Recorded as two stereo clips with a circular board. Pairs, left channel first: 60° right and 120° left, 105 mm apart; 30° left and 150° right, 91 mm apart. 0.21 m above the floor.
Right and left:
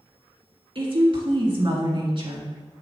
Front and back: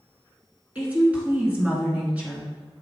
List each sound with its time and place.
0.8 s a woman speaking: 140° left, 2 m